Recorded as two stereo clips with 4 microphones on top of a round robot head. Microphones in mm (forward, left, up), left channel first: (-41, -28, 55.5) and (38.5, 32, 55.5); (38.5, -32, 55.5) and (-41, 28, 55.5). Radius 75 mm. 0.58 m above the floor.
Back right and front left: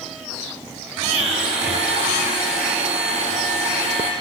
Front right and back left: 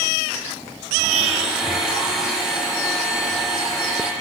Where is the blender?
60° left, 5 m.